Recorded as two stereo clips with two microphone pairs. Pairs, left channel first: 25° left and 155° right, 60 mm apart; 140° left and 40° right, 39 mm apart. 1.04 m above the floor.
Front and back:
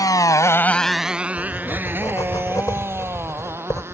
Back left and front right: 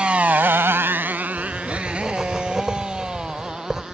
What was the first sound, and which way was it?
A motorcycle, 20° left.